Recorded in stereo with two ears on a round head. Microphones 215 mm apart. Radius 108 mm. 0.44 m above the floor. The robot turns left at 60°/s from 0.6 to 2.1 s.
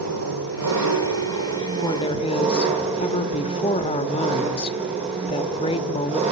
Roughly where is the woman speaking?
Centre.